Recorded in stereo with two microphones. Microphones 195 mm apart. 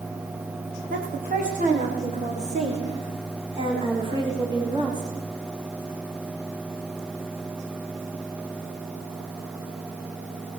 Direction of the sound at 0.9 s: 45° right (ahead or behind).